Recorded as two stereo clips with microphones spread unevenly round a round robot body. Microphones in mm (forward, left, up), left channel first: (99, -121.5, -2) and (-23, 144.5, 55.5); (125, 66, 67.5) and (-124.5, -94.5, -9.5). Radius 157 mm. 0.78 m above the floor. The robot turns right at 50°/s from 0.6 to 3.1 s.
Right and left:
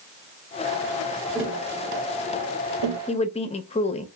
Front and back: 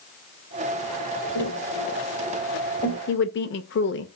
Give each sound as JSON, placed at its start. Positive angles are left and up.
{"t": 1.4, "sound": "tapping", "azimuth_deg": 20, "distance_m": 1.3}
{"t": 3.1, "sound": "a woman speaking", "azimuth_deg": -25, "distance_m": 0.5}